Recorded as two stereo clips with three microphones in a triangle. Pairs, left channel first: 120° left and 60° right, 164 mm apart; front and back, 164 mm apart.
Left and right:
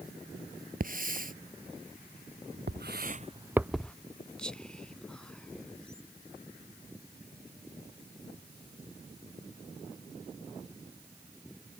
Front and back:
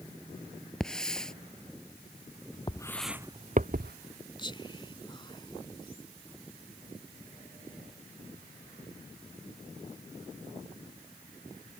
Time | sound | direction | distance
0.8 | a hiss | 85° right | ?
2.7 | footsteps | 65° right | ?
4.4 | whispering | 40° left | ?